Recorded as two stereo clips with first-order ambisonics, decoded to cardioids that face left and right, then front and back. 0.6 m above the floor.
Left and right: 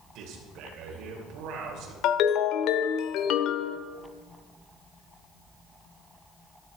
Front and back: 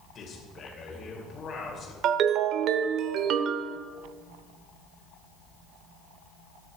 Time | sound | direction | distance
0.1 | a man speaking | 60° right | 2.5 m
2.0 | a ringtone | 135° left | 0.7 m